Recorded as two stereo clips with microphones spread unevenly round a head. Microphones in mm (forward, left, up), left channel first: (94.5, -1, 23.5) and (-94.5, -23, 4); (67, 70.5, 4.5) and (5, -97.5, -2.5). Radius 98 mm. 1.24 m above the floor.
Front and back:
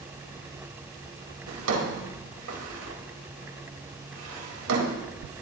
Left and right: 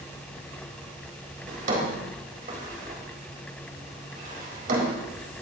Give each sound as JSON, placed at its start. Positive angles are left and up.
{"t": 1.5, "sound": "a drawer", "azimuth_deg": -165, "distance_m": 4.0}